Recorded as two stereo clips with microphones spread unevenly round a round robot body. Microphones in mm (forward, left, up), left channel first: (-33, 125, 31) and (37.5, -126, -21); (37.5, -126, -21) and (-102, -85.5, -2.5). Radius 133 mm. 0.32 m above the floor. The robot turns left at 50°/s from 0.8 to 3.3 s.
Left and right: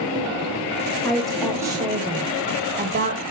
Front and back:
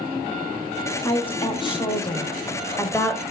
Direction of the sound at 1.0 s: 15° left.